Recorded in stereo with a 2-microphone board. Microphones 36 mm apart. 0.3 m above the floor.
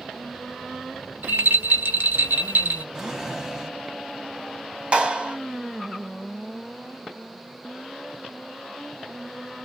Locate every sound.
1.2 s a rattle: 65° right (ahead or behind), 1.1 m
3.0 s a drawer: 15° right (ahead or behind), 1.0 m
4.9 s a clap: 30° right (ahead or behind), 2.5 m